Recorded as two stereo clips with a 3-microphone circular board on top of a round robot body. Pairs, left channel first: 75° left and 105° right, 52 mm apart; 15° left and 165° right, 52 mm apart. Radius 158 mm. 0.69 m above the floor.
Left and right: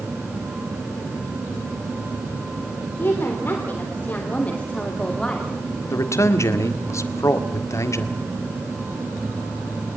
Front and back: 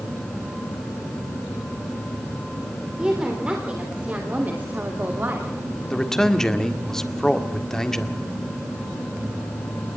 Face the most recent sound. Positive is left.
turn(degrees=95)